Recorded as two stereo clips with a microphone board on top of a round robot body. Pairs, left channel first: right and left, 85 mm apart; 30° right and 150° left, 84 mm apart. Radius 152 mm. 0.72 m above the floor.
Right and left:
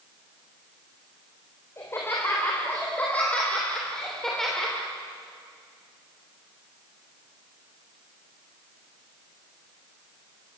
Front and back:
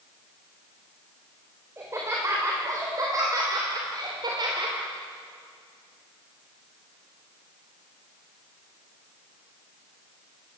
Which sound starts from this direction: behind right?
Laughter, at 1.8 s.